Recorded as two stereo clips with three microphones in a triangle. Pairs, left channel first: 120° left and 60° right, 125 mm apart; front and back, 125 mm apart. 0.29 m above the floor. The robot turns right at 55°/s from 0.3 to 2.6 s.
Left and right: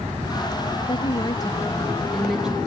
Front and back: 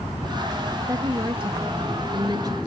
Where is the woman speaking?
130° left, 1.1 m; by 2.6 s 135° right, 1.1 m.